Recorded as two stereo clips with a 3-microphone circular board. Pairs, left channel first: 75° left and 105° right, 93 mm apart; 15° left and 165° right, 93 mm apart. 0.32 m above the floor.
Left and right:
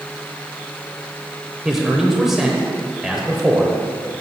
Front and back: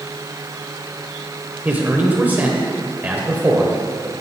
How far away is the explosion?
I don't hear an explosion.